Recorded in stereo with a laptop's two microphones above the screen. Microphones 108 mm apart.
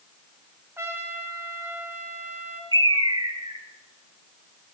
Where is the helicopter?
I don't hear a helicopter.